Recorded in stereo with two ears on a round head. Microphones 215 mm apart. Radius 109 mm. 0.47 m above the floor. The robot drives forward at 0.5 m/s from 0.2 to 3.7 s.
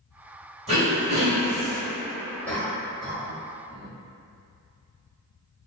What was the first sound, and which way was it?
Throat clearing, 25° right (ahead or behind).